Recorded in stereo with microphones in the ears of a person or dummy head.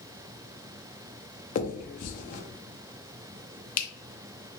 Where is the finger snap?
45° left (ahead or behind), 0.7 m.